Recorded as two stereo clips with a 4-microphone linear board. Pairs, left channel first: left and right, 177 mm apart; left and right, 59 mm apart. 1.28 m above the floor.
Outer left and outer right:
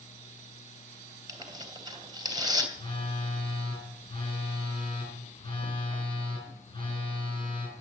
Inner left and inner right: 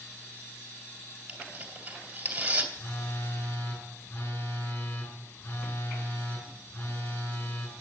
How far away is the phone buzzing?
About 6.5 m.